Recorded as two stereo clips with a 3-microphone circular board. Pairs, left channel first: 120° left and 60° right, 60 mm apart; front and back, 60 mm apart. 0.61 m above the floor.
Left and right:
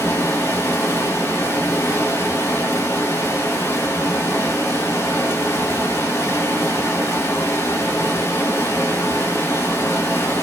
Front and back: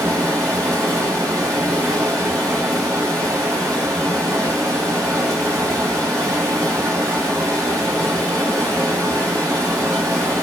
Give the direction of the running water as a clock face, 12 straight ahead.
7 o'clock.